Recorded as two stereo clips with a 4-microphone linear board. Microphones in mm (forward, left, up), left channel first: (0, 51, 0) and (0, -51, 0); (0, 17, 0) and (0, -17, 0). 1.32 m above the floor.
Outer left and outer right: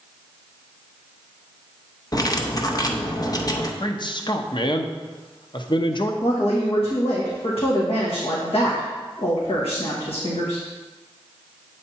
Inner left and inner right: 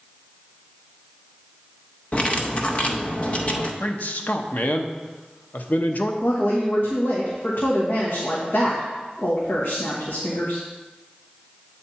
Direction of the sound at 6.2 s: 70° left (ahead or behind).